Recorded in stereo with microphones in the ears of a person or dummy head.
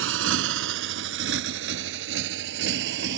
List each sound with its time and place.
0.0 s a motorcycle: 75° right (ahead or behind); by 3.2 s 65° right (ahead or behind)